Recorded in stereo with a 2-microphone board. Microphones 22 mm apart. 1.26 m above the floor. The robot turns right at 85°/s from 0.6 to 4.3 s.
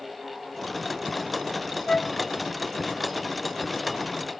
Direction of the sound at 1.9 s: 40° left (ahead or behind).